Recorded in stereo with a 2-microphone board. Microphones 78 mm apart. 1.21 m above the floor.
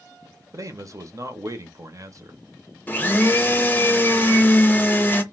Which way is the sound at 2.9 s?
25° left (ahead or behind).